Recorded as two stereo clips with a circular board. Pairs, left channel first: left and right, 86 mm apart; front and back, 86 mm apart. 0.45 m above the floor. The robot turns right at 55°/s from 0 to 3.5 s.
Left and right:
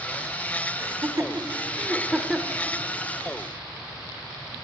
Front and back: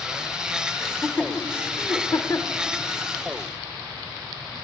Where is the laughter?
85° right, 1.3 m; by 2.6 s 20° left, 1.3 m.